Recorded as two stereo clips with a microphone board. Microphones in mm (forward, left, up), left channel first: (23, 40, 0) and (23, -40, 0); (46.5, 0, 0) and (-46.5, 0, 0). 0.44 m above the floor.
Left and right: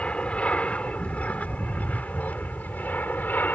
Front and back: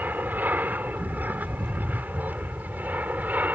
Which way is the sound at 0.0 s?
145° left.